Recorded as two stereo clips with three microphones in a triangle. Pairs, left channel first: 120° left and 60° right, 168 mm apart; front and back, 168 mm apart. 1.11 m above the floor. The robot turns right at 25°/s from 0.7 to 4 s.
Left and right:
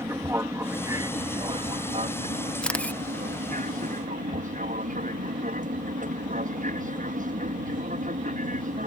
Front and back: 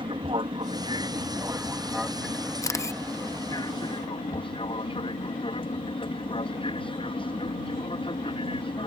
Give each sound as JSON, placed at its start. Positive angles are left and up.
{"t": 0.0, "sound": "an aircraft", "azimuth_deg": -130}
{"t": 2.6, "sound": "a camera shutter", "azimuth_deg": 40}